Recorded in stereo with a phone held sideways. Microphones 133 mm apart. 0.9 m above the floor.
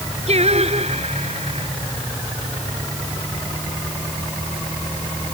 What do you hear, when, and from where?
0.3 s singing: 55° right (ahead or behind)